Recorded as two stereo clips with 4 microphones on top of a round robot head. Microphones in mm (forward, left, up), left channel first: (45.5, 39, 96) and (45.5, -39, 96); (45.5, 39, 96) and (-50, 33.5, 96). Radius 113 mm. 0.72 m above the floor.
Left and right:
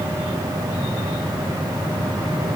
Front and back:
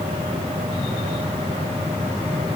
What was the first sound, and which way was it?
Only background noise.